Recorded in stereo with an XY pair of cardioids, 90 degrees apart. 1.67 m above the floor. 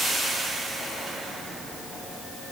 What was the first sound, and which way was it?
Only background noise.